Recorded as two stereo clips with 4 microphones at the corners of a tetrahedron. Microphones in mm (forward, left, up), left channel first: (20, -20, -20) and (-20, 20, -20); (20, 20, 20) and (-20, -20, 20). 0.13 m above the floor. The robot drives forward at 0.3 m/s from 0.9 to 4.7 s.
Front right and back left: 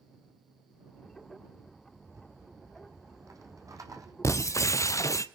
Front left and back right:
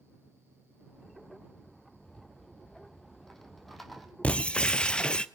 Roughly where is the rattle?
Behind left.